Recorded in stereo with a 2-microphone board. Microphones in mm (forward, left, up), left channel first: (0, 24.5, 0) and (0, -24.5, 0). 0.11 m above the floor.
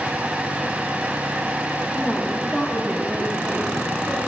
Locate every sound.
1.9 s a woman speaking: 5° right (ahead or behind), 6.5 m; by 4.2 s 15° right (ahead or behind), 6.5 m